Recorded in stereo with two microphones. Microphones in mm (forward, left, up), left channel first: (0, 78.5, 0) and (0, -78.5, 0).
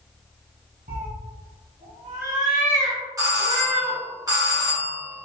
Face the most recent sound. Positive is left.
turn(degrees=-20)  # may be behind; listen again after turning